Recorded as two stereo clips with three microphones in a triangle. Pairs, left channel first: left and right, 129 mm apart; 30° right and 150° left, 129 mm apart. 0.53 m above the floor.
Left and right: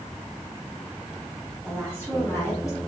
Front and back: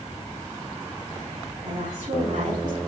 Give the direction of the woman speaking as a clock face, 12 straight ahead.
6 o'clock.